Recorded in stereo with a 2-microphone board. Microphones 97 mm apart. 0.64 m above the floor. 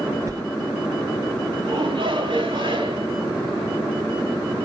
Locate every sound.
0.3 s a sliding door: 35° right (ahead or behind), 1.5 m
1.6 s a shout: 55° right (ahead or behind), 5.5 m